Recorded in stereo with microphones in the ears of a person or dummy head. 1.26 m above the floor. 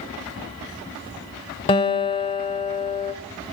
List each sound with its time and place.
1.7 s a guitar: 25° left (ahead or behind), 1.1 m